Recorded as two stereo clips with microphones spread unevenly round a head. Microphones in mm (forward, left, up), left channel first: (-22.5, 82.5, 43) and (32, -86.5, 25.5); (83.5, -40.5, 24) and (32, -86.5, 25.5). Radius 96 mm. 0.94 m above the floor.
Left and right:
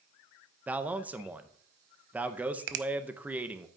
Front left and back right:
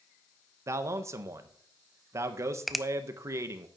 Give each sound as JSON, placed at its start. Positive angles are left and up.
{"t": 0.7, "sound": "a man speaking", "azimuth_deg": -140, "distance_m": 0.6}
{"t": 2.7, "sound": "a finger snap", "azimuth_deg": -50, "distance_m": 0.6}